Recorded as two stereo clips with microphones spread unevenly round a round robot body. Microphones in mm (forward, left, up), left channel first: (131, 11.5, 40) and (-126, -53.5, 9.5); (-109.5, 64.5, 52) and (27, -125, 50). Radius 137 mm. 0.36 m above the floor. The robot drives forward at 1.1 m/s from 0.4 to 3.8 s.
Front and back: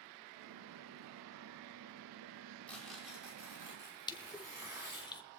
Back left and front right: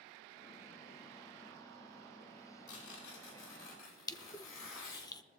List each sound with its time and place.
2.7 s tearing paper: 100° left, 4 m; by 5.1 s 120° left, 4.5 m
4.1 s crushing: 80° left, 0.7 m